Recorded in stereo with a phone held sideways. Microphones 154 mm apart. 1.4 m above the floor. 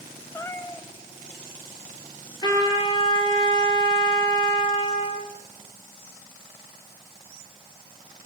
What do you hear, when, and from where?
0.3 s a cat meowing: 15° left (ahead or behind), 2 m
2.4 s a trumpet: 25° left (ahead or behind), 8.5 m